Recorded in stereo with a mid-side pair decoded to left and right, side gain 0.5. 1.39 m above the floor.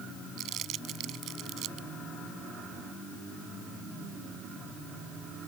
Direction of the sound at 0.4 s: 65° right.